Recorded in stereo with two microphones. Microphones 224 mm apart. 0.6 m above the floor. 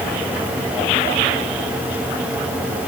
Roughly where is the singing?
I don't hear singing.